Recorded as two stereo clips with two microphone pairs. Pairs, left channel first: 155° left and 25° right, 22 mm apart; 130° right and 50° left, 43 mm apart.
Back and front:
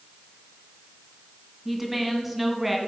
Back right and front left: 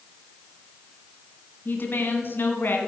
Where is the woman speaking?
100° right, 2.0 m.